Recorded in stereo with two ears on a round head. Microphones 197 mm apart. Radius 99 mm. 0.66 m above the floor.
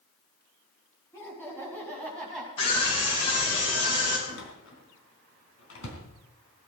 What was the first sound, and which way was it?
Laughter, 10° left (ahead or behind).